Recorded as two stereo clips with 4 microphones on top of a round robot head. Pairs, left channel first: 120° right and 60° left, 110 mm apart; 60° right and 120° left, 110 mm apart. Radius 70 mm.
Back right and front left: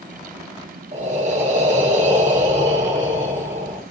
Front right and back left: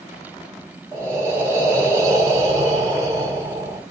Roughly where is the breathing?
Ahead left.